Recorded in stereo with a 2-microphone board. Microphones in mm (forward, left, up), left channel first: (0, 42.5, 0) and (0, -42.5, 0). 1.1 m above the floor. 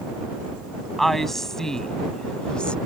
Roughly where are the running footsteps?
I don't hear running footsteps.